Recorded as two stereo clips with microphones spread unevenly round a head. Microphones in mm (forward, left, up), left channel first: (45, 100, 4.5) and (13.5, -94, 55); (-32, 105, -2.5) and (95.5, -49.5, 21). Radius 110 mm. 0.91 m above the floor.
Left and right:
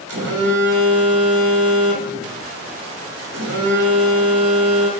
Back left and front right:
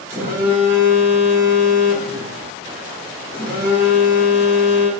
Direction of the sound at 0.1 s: 130° right.